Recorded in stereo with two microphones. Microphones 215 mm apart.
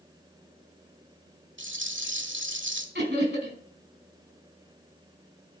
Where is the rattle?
65° right (ahead or behind), 1.3 m.